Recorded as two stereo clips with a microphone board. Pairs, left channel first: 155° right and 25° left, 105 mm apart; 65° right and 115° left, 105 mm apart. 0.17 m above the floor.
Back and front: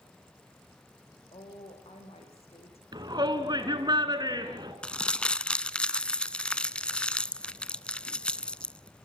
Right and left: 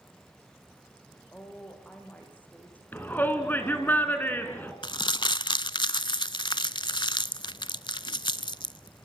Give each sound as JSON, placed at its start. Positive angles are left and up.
{"t": 1.3, "sound": "a woman speaking", "azimuth_deg": -145, "distance_m": 7.5}
{"t": 2.9, "sound": "a shout", "azimuth_deg": -5, "distance_m": 2.0}
{"t": 4.8, "sound": "crumpling", "azimuth_deg": -80, "distance_m": 0.6}